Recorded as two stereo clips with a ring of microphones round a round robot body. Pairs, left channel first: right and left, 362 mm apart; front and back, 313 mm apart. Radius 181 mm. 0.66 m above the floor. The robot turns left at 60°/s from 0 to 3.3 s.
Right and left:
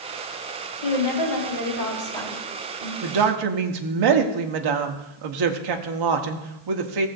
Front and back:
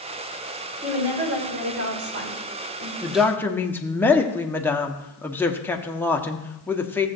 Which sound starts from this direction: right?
A woman speaking, at 0.8 s.